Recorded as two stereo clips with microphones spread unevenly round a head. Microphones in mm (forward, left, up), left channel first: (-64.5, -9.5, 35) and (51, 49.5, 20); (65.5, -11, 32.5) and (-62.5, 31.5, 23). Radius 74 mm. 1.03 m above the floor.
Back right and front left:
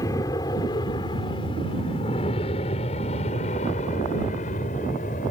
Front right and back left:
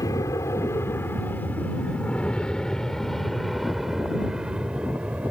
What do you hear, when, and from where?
0.0 s an aircraft: 85° right; by 5.3 s 120° right